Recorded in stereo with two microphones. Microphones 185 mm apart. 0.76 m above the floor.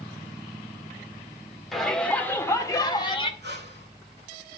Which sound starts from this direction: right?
Breathing, at 3.4 s.